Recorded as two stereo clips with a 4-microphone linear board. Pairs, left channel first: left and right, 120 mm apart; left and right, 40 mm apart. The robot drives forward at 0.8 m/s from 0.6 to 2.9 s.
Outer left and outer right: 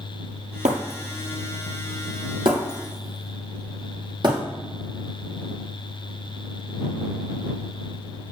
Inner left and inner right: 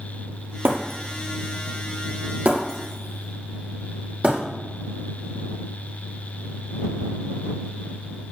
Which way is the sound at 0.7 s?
85° right.